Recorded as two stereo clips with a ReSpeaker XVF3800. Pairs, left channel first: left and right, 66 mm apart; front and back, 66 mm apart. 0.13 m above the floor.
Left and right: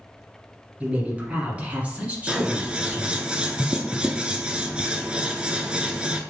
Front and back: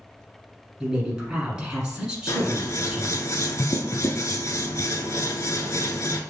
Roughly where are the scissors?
Ahead.